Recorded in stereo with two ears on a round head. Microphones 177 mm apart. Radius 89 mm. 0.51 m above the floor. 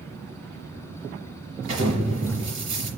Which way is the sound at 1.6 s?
30° right (ahead or behind).